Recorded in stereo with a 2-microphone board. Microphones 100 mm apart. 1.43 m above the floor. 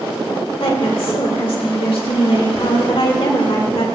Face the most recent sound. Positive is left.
turn(degrees=70)  # may be behind; listen again after turning